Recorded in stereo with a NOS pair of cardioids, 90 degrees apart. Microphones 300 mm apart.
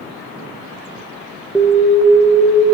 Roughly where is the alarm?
Ahead.